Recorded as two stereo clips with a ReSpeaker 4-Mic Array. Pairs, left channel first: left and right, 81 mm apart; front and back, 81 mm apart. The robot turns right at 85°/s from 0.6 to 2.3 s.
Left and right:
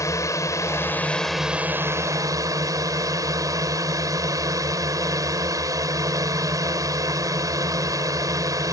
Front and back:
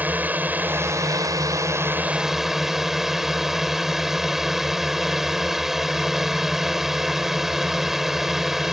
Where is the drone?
120° left; by 8.7 s 100° right.